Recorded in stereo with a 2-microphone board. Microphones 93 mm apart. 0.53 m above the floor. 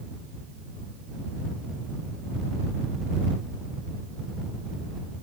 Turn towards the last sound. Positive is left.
No sound to turn to.